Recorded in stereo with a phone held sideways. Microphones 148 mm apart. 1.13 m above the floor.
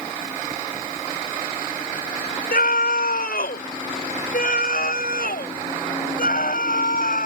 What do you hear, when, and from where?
2.5 s a scream: 85° left; by 7.3 s 75° left (ahead or behind)